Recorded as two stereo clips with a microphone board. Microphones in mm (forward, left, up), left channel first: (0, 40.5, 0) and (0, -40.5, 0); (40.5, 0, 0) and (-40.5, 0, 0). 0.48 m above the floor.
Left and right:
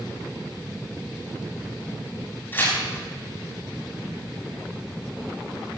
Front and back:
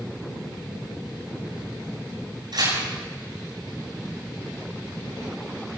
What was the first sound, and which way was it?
Tearing paper, 150° left.